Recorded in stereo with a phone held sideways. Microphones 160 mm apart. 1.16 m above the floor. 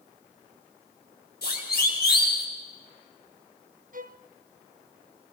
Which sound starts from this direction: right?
A violin, at 3.9 s.